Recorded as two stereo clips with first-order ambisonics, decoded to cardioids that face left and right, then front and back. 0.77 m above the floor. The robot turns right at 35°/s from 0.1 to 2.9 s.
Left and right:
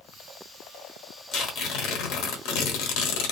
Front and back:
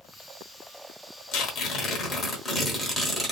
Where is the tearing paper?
40° left, 0.8 m; by 3.3 s 95° left, 0.8 m.